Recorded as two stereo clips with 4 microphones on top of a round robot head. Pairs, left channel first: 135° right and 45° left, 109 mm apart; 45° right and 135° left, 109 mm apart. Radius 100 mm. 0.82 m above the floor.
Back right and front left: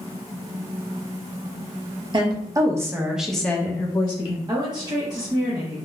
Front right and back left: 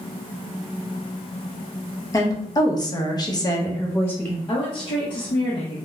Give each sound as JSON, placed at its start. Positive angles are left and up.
{"t": 2.1, "sound": "a woman speaking", "azimuth_deg": 10, "distance_m": 1.1}
{"t": 4.5, "sound": "a woman speaking", "azimuth_deg": -5, "distance_m": 0.7}